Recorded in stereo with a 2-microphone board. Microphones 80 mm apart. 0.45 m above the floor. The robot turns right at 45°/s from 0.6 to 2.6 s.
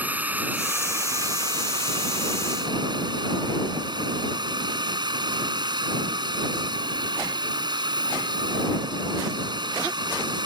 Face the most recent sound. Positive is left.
turn(degrees=-70)